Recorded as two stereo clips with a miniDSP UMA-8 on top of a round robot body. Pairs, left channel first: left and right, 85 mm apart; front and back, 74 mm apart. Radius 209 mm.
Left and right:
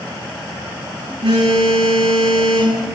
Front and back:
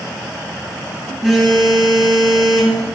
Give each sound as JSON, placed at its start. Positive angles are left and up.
{"t": 1.2, "sound": "a phone buzzing", "azimuth_deg": -95, "distance_m": 9.0}